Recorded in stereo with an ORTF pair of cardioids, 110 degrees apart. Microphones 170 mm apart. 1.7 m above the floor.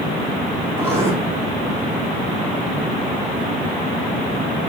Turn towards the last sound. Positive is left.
turn(degrees=-15)